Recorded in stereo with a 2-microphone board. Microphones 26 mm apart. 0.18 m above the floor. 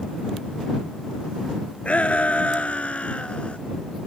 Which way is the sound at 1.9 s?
65° left (ahead or behind).